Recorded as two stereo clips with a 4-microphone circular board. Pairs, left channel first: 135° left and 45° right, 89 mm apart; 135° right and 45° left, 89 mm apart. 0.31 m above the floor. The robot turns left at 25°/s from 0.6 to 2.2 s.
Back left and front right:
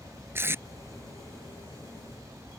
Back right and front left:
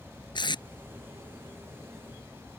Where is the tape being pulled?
105° right; by 0.6 s 110° right.